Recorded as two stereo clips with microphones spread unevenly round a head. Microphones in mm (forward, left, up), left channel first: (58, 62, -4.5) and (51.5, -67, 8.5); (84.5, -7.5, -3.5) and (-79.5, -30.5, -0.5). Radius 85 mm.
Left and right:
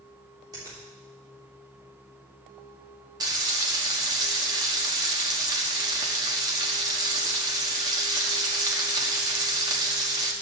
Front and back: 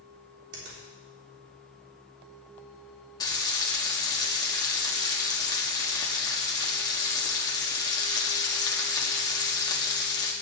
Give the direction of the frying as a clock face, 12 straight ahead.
2 o'clock.